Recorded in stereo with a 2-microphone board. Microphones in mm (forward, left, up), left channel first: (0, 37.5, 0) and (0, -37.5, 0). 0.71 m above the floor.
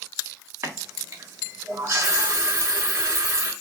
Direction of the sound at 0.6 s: 40° right (ahead or behind).